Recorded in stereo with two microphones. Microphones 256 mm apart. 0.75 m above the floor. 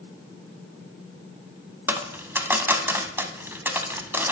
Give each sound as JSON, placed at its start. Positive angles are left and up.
{"t": 1.9, "sound": "a dropped coin", "side_deg": -10, "distance_m": 0.6}